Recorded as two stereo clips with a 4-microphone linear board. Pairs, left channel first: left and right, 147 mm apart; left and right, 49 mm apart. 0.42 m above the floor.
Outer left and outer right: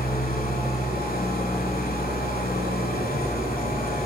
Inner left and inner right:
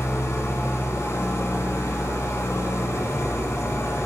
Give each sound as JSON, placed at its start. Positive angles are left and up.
{"t": 0.0, "sound": "an engine running", "side_deg": 85, "distance_m": 0.9}